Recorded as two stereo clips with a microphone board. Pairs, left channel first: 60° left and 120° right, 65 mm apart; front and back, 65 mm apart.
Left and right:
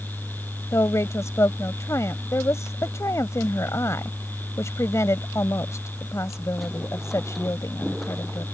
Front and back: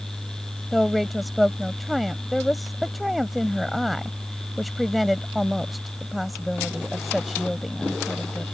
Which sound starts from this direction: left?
A woman speaking, at 0.7 s.